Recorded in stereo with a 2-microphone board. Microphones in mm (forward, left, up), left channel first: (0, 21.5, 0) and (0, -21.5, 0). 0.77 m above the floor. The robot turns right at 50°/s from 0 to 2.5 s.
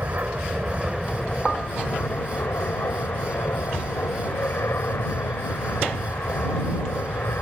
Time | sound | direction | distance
0.0 | an aircraft | 60° right | ?